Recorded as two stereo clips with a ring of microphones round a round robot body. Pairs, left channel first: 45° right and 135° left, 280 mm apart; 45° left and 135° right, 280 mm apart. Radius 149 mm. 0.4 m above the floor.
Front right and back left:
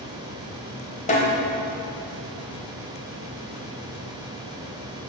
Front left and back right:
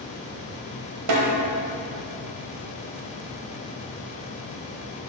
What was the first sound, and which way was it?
A snare drum, 110° right.